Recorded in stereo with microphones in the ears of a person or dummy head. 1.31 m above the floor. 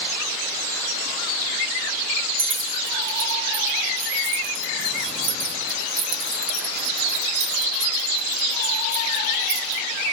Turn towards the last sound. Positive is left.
turn(degrees=-65)  # may be behind; listen again after turning